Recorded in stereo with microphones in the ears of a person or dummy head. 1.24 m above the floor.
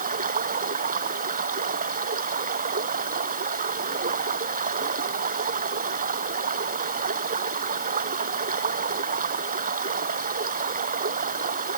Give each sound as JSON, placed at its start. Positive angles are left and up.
{"t": 0.0, "sound": "running water", "side_deg": -45}